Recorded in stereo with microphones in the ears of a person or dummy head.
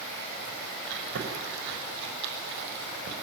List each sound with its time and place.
0.9 s chewing: 65° right (ahead or behind), 5.5 m